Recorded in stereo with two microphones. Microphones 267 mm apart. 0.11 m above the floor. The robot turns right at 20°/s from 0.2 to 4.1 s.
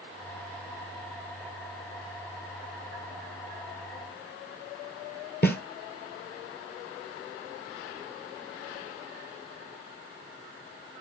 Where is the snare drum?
40° left (ahead or behind), 1.5 m.